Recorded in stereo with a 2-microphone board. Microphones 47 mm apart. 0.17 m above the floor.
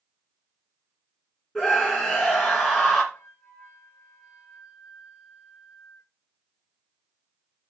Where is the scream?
5° left (ahead or behind), 2.5 m.